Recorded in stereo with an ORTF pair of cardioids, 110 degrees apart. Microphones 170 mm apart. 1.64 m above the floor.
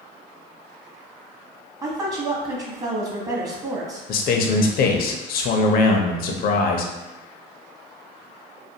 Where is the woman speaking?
20° right, 0.9 m.